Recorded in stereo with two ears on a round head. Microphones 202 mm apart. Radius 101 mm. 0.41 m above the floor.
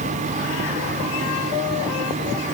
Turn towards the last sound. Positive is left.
No sound to turn to.